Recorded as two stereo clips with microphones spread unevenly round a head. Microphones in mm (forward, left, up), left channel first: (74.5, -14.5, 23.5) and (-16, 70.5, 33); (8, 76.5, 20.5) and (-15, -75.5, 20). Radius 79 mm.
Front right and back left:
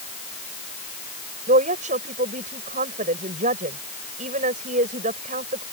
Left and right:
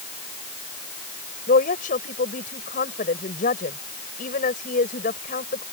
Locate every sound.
1.5 s a woman speaking: 120° left